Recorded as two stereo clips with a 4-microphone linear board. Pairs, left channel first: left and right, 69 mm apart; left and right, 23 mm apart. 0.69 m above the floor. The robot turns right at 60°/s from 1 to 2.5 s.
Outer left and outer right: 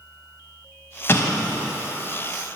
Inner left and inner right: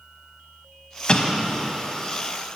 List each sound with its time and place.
1.1 s an explosion: 45° left, 0.9 m; by 1.7 s 80° left, 0.9 m